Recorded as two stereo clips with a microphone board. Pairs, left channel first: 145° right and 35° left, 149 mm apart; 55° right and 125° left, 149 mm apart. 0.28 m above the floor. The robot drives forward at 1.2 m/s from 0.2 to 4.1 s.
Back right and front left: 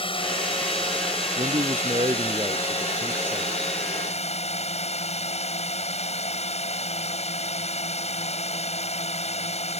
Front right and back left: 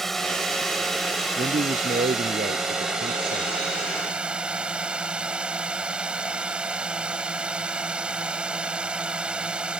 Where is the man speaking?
85° left; by 3.6 s 115° left.